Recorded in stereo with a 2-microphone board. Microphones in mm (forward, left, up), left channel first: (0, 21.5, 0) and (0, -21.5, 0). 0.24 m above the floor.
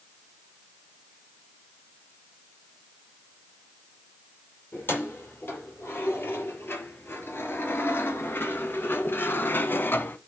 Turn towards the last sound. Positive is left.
turn(degrees=50)  # may be behind; listen again after turning